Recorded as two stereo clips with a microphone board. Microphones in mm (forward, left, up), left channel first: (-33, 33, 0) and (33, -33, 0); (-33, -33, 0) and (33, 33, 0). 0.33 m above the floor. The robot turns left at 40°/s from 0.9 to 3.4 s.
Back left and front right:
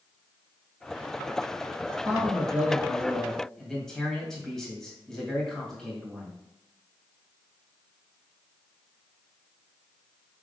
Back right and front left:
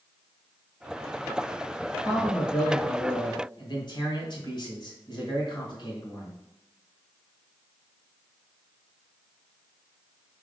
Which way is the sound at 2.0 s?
85° right.